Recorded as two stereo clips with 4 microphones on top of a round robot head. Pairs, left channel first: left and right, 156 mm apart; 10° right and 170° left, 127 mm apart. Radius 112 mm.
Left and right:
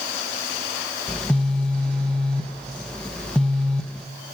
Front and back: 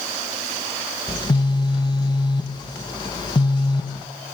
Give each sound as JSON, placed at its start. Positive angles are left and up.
{"t": 1.1, "sound": "a phone buzzing", "azimuth_deg": 10, "distance_m": 1.0}